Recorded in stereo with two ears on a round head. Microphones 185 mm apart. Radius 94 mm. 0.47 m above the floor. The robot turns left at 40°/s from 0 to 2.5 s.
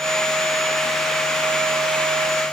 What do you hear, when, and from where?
Only background noise.